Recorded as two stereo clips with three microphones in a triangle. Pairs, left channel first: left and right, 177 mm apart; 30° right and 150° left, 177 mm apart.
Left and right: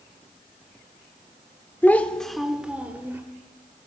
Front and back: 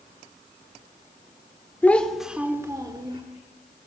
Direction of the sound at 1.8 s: 30° left.